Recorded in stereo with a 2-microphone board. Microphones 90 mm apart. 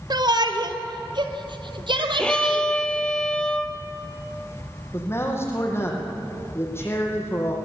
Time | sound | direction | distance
0.1 | a shout | 50° right (ahead or behind) | 1.7 m
2.2 | a violin | 10° left (ahead or behind) | 1.7 m
4.9 | a man speaking | 30° left (ahead or behind) | 5.5 m